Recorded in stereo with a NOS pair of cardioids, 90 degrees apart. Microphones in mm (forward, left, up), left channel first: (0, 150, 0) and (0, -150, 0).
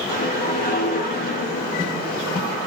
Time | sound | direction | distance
0.1 | a whoosh | 30° left | 0.9 m